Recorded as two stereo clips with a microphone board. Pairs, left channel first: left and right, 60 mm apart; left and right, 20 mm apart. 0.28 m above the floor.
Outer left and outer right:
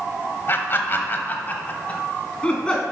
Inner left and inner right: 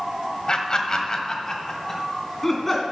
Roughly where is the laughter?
Left.